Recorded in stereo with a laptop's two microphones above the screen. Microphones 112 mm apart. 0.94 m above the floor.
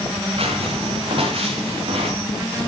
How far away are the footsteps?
About 6 m.